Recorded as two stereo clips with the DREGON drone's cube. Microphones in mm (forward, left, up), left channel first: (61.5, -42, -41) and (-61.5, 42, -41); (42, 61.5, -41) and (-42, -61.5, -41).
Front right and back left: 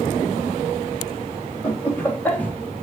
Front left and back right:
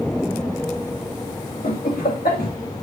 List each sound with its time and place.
1.6 s laughter: 40° left, 2.5 m; by 2.8 s 50° left, 2.5 m